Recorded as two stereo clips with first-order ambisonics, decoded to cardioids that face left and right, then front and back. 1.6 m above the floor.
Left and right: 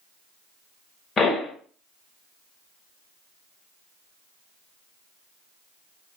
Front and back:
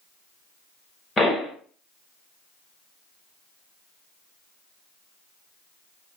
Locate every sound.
1.2 s a pop: 45° left, 1.4 m